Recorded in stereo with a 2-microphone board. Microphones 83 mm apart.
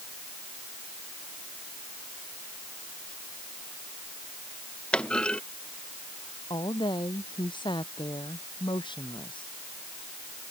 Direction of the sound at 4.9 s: 10° left (ahead or behind).